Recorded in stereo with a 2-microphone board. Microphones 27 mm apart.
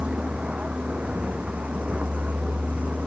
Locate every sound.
0.0 s a vehicle: 55° right (ahead or behind); by 3.1 s 70° right (ahead or behind)